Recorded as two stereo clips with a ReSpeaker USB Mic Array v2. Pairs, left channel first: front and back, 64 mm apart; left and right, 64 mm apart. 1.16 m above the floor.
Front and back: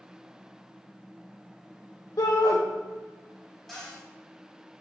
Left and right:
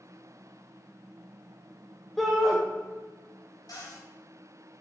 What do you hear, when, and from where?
2.2 s a shout: straight ahead, 0.9 m
3.7 s a cupboard door: 85° left, 3 m